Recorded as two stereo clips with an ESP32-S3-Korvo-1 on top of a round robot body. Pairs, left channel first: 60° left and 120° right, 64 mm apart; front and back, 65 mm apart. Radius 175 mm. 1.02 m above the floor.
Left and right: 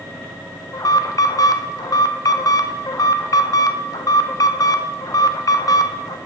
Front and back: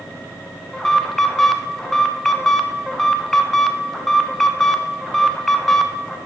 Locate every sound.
0.7 s an alarm: 85° left, 0.9 m